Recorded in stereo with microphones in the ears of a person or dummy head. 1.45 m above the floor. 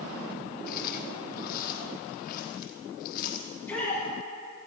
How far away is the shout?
About 6 m.